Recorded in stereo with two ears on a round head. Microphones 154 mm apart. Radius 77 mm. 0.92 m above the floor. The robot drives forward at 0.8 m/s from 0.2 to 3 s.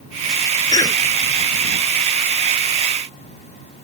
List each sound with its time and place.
0.7 s a cough: 25° left (ahead or behind)